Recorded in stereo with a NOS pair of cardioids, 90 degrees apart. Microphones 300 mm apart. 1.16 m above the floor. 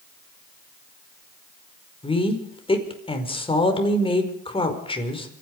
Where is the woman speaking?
20° left, 5 m.